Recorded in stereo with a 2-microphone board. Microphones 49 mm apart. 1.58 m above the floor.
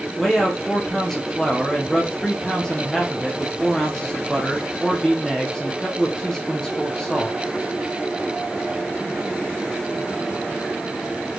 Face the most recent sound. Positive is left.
turn(degrees=10)  # may be behind; listen again after turning